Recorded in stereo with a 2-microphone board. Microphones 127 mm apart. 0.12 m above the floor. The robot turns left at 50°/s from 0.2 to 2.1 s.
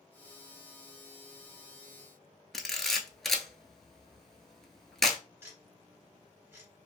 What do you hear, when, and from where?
2.5 s a camera shutter: 5° left (ahead or behind), 0.6 m
5.4 s ticking: 20° right (ahead or behind), 1.6 m